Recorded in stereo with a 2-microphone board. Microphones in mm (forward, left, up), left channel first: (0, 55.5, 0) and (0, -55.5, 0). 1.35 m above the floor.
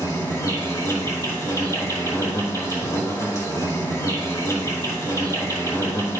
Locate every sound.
0.0 s an insect: 30° left (ahead or behind), 1.7 m